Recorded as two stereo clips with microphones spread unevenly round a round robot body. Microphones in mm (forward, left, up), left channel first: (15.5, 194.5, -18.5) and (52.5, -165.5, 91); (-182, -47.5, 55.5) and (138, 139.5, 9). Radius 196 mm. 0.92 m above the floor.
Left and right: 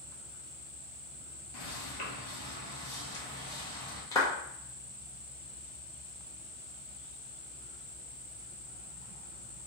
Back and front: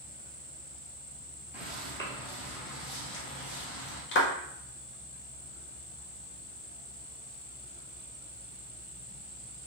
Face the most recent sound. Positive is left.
turn(degrees=155)